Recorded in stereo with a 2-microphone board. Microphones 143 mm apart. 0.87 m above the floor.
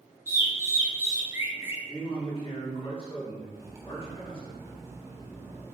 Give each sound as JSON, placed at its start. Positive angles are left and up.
{"t": 0.3, "sound": "a bird", "side_deg": -15, "distance_m": 0.5}
{"t": 1.9, "sound": "a man speaking", "side_deg": 40, "distance_m": 1.6}
{"t": 3.5, "sound": "cutlery clinking", "side_deg": -20, "distance_m": 0.5}